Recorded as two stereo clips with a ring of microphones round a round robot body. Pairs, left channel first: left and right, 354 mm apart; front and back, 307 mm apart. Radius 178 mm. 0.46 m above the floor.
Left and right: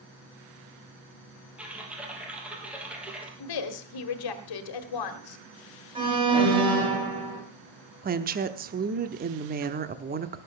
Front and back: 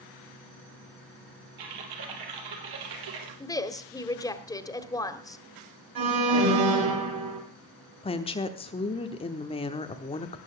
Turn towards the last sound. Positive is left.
turn(degrees=-55)